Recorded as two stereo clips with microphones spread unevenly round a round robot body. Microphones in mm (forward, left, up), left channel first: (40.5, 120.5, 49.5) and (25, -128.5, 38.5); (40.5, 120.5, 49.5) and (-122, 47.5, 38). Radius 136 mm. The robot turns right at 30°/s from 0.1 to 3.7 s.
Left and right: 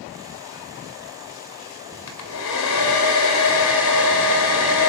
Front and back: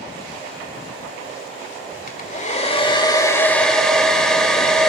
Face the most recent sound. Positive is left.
turn(degrees=110)